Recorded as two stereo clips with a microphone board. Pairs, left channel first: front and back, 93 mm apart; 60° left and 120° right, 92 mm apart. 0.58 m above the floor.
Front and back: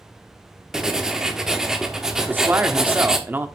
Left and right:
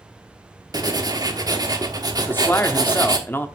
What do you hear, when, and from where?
0.7 s writing: 100° right, 1.1 m
2.2 s a man speaking: 120° left, 0.9 m